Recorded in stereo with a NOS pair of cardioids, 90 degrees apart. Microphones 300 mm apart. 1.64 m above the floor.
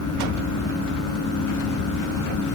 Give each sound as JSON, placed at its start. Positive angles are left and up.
{"t": 0.0, "sound": "a fan", "azimuth_deg": 70}